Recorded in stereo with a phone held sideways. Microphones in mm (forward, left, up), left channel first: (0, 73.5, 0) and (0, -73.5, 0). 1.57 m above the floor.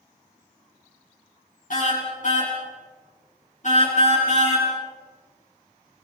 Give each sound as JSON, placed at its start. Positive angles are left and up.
{"t": 1.7, "sound": "a car horn", "side_deg": 65, "distance_m": 9.0}